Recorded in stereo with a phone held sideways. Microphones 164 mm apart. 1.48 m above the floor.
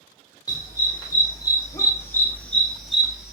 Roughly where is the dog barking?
Left.